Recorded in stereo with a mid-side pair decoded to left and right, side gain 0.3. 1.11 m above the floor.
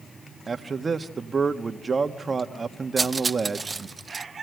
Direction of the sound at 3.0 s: 35° right.